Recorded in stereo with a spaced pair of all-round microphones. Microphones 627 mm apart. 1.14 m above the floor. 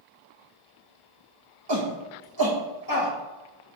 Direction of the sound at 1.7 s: 40° right (ahead or behind).